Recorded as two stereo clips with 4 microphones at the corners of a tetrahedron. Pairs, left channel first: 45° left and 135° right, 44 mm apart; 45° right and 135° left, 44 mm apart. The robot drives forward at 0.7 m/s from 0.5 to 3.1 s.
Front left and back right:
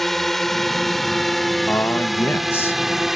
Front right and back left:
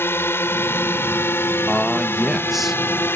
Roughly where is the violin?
No violin in this recording.